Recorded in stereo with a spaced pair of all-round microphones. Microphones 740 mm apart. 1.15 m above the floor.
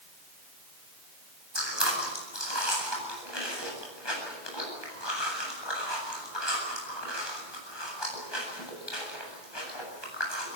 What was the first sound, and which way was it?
Chewing, 35° left (ahead or behind).